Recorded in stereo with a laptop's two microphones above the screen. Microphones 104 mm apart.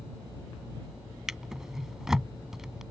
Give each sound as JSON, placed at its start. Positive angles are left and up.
{"t": 1.3, "sound": "a drawer", "side_deg": -5}